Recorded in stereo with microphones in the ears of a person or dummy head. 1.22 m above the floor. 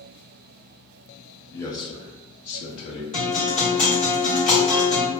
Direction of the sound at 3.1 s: 40° left (ahead or behind).